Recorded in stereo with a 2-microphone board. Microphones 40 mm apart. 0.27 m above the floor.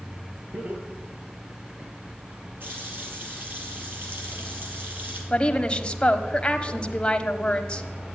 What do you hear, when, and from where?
0.5 s laughter: 45° right (ahead or behind), 7.5 m; by 1.9 s 50° right (ahead or behind), 5.5 m
2.6 s a running tap: 55° right (ahead or behind), 4 m
5.3 s a woman speaking: 25° left (ahead or behind), 1.3 m